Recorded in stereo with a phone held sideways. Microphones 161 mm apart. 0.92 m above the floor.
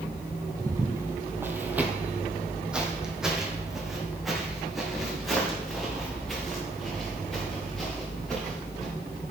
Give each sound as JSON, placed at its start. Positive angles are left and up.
{"t": 0.6, "sound": "footsteps", "side_deg": -20, "distance_m": 1.0}